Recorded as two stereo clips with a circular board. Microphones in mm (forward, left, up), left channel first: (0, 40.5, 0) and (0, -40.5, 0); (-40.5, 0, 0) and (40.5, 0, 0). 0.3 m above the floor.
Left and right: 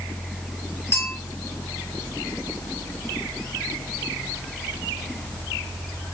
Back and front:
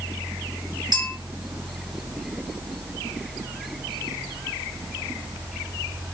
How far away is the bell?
About 1.7 m.